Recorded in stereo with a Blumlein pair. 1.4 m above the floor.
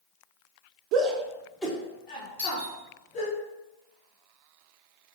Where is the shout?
40° right, 0.8 m; by 3.4 s 35° left, 3 m.